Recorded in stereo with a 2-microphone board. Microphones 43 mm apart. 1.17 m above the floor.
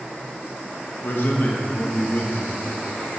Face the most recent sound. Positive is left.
turn(degrees=55)  # may be behind; listen again after turning